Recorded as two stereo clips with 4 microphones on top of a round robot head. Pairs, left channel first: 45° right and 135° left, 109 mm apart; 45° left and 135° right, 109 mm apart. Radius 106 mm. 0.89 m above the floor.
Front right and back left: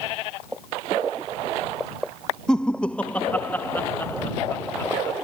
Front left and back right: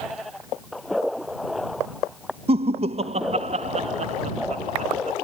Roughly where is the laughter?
Behind right.